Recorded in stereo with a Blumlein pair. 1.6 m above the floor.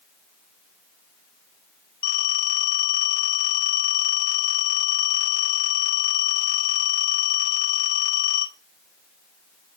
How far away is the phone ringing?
About 1.4 m.